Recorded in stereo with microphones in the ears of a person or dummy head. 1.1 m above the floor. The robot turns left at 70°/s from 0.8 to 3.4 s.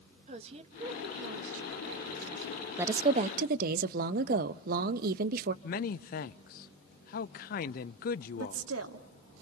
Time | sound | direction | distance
0.3 | a woman speaking | 40° right | 1.6 m
2.8 | a woman speaking | 15° right | 1.0 m
5.6 | a man speaking | 45° left (ahead or behind) | 0.6 m
8.4 | a woman speaking | 80° right | 2.5 m